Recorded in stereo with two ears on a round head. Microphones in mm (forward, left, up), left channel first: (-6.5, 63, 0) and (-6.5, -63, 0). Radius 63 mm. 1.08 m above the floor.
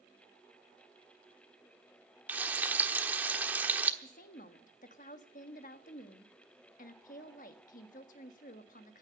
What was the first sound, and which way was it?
Frying, 15° right (ahead or behind).